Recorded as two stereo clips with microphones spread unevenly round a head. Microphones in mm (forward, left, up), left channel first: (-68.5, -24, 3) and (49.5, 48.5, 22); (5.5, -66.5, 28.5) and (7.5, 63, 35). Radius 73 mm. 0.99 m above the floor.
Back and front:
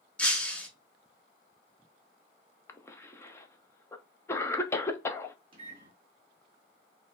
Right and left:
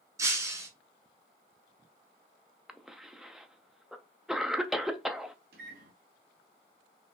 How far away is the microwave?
About 1.5 m.